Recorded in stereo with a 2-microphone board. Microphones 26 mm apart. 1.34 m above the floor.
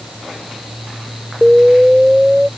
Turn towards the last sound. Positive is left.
turn(degrees=-30)  # may be behind; listen again after turning